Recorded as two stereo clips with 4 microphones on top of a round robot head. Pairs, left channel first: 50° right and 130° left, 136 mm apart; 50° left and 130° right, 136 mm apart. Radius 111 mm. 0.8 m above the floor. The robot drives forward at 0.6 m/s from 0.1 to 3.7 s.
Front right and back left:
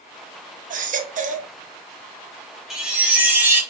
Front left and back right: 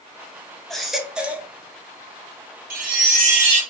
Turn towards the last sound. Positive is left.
turn(degrees=-160)